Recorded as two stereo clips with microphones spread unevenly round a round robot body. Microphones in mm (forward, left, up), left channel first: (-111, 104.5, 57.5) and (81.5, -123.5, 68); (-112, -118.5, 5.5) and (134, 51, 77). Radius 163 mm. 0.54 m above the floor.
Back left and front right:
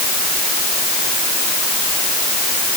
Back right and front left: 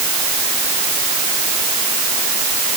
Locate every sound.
Only background noise.